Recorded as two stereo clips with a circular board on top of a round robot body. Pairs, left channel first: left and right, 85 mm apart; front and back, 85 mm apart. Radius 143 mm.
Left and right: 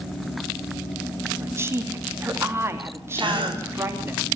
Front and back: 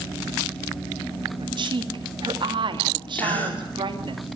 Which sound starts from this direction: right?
A gasp, at 3.1 s.